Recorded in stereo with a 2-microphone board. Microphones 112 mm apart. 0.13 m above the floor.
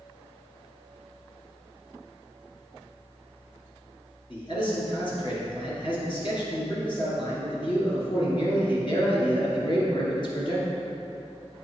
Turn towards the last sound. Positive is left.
turn(degrees=45)  # may be behind; listen again after turning